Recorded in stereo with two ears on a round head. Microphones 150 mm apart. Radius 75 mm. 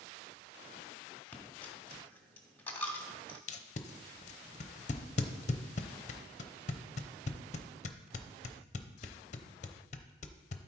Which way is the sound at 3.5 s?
45° left (ahead or behind).